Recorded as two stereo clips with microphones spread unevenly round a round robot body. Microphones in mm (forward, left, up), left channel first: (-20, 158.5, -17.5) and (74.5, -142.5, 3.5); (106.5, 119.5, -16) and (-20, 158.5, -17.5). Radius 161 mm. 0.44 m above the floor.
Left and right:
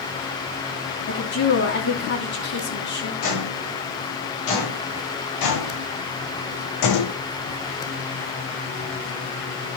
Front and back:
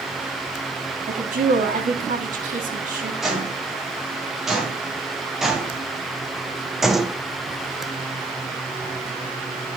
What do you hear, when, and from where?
1.1 s a woman speaking: 165° left, 2.5 m
3.2 s footsteps: 75° left, 6.5 m